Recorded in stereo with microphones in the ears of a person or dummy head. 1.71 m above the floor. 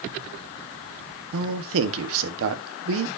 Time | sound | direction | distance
1.3 | a man speaking | 75° right (ahead or behind) | 1.3 m